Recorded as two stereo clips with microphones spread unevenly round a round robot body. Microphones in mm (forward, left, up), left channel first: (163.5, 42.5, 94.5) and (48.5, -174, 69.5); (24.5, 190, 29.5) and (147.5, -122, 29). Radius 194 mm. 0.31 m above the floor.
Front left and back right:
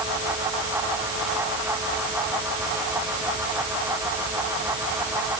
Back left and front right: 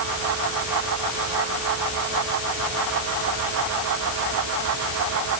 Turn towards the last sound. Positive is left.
No sound to turn to.